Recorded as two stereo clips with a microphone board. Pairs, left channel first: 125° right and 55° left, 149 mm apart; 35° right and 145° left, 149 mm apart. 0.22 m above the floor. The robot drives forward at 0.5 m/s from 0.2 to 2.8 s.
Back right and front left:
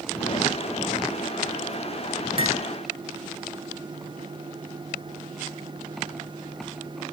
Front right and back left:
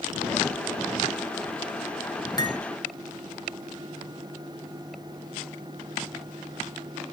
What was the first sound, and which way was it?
Cutlery clinking, 20° left.